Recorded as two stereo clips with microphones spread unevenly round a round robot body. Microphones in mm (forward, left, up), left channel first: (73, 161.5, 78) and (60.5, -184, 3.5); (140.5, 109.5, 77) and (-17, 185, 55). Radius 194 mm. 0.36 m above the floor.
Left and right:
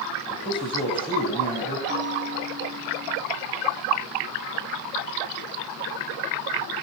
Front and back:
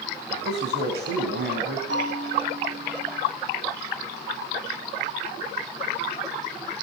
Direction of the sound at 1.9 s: 165° right.